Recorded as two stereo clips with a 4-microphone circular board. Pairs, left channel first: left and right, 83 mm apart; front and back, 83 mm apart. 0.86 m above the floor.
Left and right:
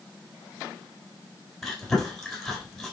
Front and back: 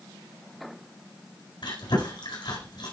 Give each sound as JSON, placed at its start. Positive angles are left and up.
{"t": 1.6, "sound": "chewing", "azimuth_deg": 0, "distance_m": 4.0}